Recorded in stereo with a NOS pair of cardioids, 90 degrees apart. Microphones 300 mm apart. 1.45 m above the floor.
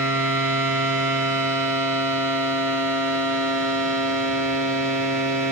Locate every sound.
0.0 s a machine running: 45° right, 1.7 m